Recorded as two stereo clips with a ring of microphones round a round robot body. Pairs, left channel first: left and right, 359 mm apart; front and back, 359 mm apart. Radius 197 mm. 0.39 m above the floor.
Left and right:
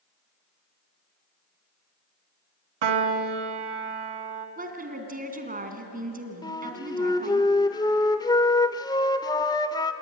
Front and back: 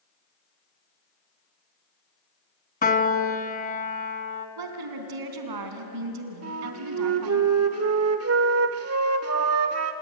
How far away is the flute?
About 1.2 m.